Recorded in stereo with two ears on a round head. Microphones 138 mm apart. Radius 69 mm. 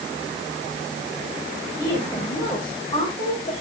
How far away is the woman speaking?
About 5 m.